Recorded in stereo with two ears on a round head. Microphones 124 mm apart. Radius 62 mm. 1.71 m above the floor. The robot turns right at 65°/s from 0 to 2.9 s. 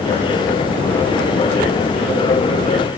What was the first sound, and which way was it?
Only background noise.